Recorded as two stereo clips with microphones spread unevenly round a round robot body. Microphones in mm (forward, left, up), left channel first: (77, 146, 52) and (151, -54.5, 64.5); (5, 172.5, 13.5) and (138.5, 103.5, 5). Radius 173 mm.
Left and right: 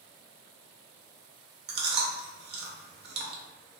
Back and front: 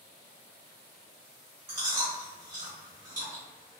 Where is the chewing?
90° right, 0.6 m.